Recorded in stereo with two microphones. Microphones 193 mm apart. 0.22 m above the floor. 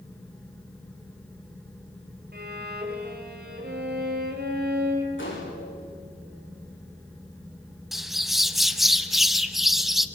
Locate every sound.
2.3 s a violin: 55° right (ahead or behind), 3.5 m
5.2 s a gunshot: 85° left, 7 m
7.9 s a bird: centre (ahead or behind), 0.8 m